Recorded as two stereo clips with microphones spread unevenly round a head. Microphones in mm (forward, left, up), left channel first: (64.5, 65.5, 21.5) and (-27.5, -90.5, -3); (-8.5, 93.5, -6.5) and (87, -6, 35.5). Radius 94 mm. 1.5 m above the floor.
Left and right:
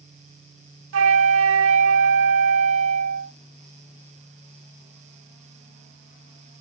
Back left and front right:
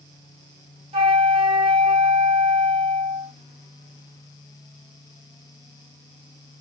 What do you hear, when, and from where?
0.9 s a flute: 105° right, 0.6 m